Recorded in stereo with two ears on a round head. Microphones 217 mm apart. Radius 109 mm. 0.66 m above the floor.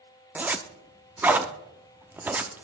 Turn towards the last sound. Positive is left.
turn(degrees=-5)  # may be behind; listen again after turning